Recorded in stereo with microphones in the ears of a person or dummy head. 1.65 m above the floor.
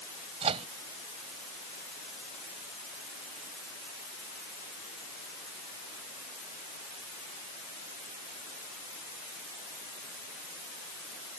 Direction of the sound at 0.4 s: 35° right (ahead or behind).